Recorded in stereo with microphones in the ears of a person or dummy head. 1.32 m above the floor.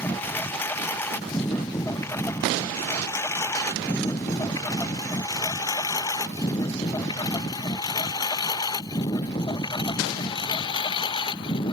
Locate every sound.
0.0 s a lawn mower: 15° left (ahead or behind); by 11.7 s 35° left (ahead or behind)